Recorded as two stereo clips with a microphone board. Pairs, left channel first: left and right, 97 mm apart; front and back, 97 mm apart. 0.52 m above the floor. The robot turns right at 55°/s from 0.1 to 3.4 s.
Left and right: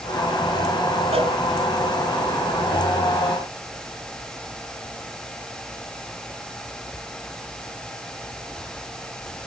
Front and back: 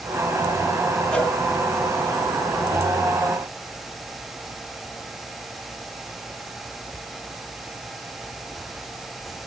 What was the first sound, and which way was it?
A cowbell, 80° right.